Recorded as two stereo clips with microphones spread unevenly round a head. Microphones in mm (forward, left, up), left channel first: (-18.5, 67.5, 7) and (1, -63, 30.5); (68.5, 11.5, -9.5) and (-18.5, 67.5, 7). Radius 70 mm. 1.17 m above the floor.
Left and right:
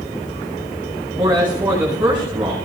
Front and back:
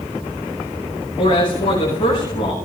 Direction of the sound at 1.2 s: Straight ahead.